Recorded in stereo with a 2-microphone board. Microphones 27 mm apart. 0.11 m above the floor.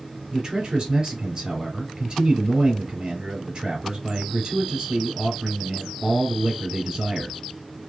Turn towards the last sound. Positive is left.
turn(degrees=-30)  # may be behind; listen again after turning